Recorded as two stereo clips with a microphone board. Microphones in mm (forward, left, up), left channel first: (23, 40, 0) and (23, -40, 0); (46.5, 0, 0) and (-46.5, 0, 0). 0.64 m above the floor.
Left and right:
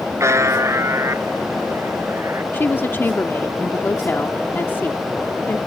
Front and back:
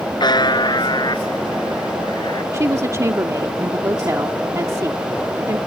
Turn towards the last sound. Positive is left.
turn(degrees=140)